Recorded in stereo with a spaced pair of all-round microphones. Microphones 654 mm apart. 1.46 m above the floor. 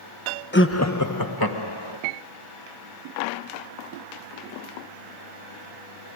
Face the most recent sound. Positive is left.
turn(degrees=40)  # may be behind; listen again after turning